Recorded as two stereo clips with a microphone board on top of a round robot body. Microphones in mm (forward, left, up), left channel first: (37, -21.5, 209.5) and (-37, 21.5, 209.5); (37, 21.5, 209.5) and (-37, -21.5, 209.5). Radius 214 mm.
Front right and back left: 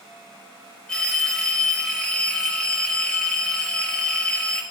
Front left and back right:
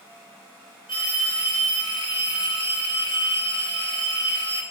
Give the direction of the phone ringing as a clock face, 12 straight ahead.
10 o'clock.